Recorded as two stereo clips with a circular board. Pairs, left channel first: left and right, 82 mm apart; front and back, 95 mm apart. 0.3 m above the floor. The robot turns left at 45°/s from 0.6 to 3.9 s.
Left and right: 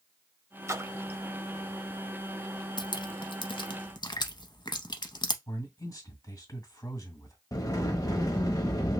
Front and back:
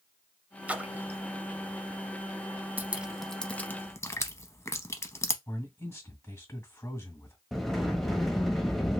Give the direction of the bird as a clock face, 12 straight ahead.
I don't hear a bird.